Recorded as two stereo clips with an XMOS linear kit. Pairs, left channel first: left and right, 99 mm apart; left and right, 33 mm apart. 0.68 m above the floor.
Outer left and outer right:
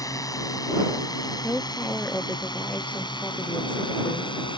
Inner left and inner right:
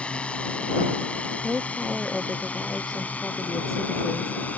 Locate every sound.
0.0 s a drone: 35° left (ahead or behind); by 4.6 s 50° left (ahead or behind)
1.4 s a woman speaking: 10° left (ahead or behind)